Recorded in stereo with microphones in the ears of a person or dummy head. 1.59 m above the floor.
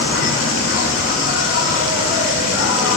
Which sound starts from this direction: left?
An insect, at 0.0 s.